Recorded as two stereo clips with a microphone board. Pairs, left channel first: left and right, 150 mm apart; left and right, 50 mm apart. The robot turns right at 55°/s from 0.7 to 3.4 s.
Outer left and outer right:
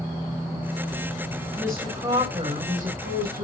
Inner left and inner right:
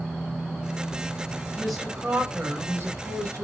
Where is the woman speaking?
170° left, 6.5 m; by 3.4 s 90° right, 6.5 m.